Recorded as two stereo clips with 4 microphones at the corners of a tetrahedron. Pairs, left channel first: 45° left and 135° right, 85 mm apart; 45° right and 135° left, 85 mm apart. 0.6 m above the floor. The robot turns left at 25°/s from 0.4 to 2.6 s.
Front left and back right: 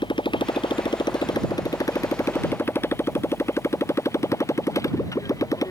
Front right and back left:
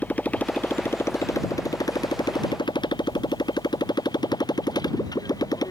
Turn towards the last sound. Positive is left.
turn(degrees=-5)